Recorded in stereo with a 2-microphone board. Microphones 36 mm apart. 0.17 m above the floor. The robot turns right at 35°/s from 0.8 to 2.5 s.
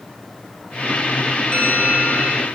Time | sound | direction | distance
1.5 | a bell | 35° left | 3 m